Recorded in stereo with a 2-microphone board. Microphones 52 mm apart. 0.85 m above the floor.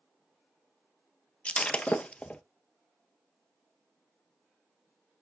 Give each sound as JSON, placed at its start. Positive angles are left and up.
{"t": 1.4, "sound": "breaking glass", "side_deg": 20, "distance_m": 0.9}